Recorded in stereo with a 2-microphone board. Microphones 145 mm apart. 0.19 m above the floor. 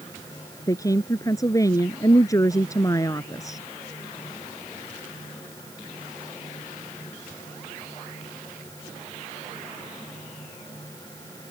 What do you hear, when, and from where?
0.7 s a woman speaking: 20° left (ahead or behind)